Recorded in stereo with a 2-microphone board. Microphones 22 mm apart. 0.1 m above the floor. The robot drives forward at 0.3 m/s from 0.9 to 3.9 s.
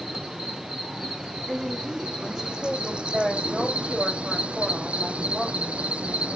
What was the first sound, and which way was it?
An insect, 30° right (ahead or behind).